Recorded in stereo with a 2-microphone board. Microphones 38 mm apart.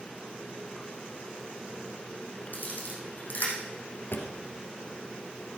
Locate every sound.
2.5 s a camera shutter: 50° left (ahead or behind), 4.5 m
4.1 s a drawer: 70° left (ahead or behind), 1.7 m